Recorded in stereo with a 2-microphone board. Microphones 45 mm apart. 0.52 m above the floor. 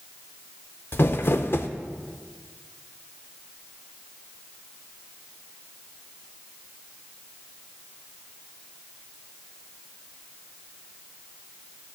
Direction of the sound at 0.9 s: 55° left (ahead or behind).